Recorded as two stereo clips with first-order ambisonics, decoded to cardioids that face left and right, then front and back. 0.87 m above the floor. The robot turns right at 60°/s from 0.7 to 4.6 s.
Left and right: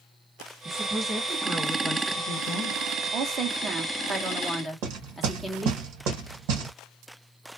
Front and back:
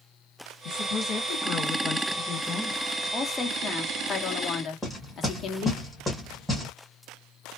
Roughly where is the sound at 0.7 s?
Ahead.